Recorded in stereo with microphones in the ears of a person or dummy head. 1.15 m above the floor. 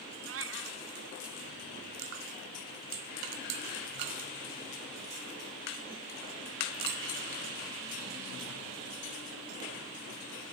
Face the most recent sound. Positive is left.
turn(degrees=-70)  # may be behind; listen again after turning